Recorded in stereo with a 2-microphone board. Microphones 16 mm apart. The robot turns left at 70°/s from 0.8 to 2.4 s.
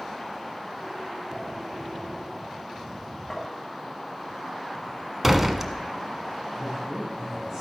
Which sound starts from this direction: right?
A man speaking, at 6.6 s.